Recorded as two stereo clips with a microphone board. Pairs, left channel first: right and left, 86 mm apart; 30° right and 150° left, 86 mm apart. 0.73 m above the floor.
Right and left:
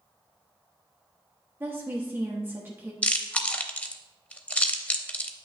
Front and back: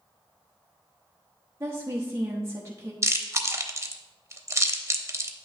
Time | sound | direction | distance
1.6 | a woman speaking | 125° left | 0.9 m
3.0 | chewing | 160° right | 0.7 m